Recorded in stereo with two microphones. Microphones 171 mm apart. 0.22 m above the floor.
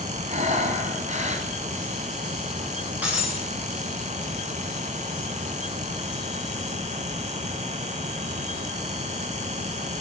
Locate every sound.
0.3 s breathing: 45° right (ahead or behind), 1.8 m
3.0 s breaking glass: 10° right (ahead or behind), 7.5 m